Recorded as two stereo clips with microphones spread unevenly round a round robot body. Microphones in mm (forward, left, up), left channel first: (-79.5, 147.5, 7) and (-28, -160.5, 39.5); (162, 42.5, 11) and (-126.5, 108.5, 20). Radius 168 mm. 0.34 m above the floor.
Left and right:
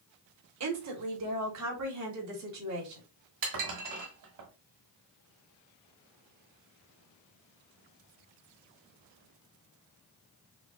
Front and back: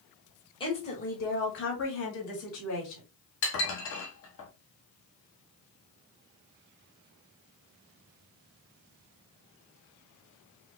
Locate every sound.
0.6 s a woman speaking: 80° right, 1.3 m; by 3.0 s 45° right, 2.5 m
3.4 s dishes clattering: 55° right, 1.4 m